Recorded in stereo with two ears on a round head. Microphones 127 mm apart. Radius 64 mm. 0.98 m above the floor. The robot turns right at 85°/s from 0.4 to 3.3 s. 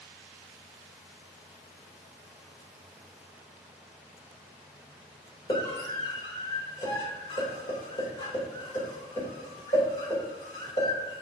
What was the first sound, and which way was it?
A scream, 30° left (ahead or behind).